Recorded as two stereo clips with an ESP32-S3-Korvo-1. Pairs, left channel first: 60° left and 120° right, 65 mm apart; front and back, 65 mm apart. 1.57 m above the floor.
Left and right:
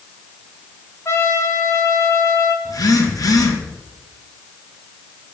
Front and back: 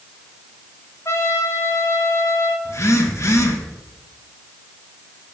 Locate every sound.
1.1 s a trumpet: 25° left, 1.2 m
2.6 s a phone buzzing: 40° left, 1.5 m